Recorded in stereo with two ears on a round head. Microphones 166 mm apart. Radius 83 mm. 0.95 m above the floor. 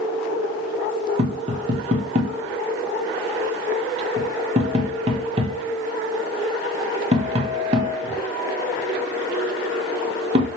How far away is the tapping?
About 0.9 m.